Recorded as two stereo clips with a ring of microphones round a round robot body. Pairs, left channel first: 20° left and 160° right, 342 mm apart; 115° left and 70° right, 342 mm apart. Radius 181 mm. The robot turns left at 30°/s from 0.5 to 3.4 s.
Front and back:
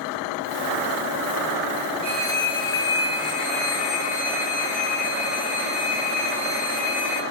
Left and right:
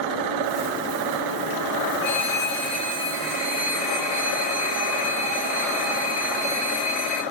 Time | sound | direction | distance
2.0 | a phone ringing | 120° left | 3.5 m